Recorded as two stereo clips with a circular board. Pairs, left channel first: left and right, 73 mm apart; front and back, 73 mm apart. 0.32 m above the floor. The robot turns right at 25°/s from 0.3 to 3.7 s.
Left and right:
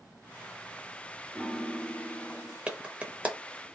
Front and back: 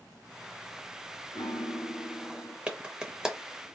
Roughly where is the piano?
Ahead.